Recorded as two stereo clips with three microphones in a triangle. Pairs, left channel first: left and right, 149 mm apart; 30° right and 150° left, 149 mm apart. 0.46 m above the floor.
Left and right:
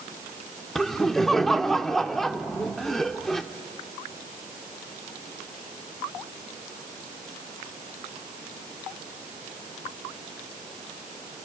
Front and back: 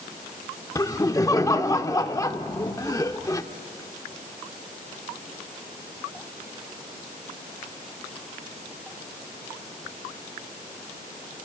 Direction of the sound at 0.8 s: 5° left.